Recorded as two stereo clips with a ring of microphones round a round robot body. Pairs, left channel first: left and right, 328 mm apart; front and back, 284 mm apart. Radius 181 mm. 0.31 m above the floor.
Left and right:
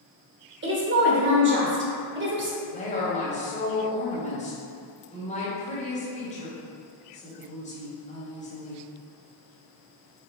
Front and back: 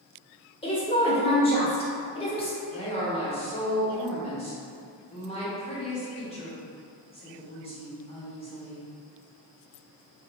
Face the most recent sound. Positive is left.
turn(degrees=45)